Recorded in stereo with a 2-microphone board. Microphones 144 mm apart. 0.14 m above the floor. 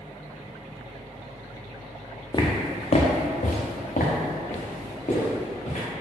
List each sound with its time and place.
2.3 s footsteps: 30° left (ahead or behind), 0.7 m; by 5.8 s 60° left (ahead or behind), 1.9 m